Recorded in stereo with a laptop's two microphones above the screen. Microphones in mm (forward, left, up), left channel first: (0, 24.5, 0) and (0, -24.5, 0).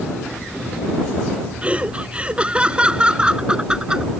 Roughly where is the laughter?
Right.